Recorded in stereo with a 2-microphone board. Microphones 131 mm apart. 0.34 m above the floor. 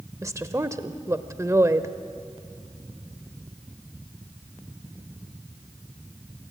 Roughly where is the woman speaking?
Right.